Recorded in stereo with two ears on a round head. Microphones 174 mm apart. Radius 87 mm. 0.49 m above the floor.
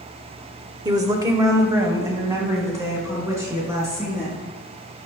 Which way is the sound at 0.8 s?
20° right (ahead or behind).